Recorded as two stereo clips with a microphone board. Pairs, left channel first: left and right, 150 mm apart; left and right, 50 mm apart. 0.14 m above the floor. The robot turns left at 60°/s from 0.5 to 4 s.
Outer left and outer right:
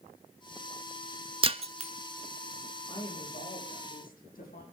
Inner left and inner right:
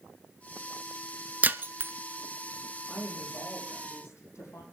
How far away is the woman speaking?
About 7.5 m.